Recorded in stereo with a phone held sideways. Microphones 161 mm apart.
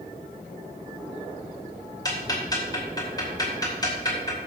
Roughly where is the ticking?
Left.